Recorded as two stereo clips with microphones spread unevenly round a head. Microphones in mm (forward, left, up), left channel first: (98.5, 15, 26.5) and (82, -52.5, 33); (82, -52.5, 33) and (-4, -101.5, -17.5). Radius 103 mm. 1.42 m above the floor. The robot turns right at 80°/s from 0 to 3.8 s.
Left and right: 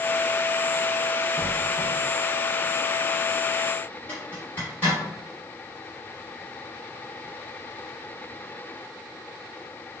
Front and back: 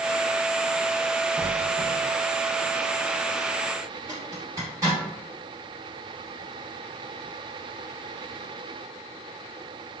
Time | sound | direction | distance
1.4 | a squeak | 20° right | 0.6 m
4.1 | a zipper | 115° left | 1.1 m